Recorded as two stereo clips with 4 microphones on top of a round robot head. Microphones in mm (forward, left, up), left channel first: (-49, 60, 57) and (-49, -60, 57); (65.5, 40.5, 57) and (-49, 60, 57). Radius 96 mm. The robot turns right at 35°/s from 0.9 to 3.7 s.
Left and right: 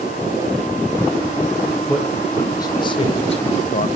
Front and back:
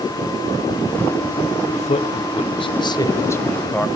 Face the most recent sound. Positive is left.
turn(degrees=70)